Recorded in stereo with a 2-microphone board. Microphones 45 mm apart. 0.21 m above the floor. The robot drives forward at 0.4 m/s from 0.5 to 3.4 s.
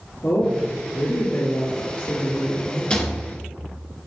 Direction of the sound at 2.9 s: 25° left (ahead or behind).